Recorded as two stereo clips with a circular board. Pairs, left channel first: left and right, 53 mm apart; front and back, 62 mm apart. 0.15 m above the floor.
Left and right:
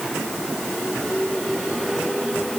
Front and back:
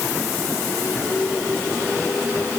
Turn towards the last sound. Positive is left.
No sound to turn to.